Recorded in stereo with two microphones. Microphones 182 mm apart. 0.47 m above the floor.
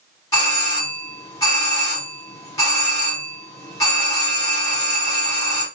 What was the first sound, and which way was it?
A doorbell, 20° left (ahead or behind).